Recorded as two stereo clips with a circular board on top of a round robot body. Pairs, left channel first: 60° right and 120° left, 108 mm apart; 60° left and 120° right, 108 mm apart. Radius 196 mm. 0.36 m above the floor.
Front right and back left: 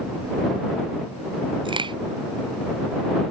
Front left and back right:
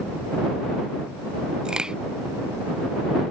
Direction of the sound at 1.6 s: 160° left.